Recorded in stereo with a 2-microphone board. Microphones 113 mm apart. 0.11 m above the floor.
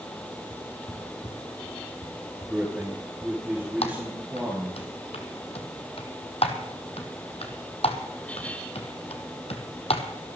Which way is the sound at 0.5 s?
45° left (ahead or behind).